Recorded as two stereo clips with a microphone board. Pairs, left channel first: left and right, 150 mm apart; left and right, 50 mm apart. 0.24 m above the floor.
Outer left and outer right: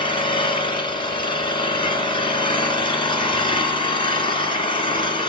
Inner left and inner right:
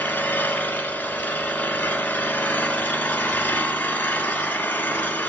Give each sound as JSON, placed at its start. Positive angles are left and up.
{"t": 0.0, "sound": "an engine running", "side_deg": 35, "distance_m": 1.4}